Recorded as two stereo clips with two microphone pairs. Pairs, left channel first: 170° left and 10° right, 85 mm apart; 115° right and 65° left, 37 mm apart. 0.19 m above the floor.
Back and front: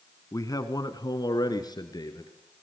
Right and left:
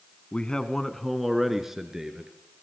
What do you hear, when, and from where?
0.3 s a man speaking: 165° right, 1.7 m; by 2.3 s 135° left, 3.5 m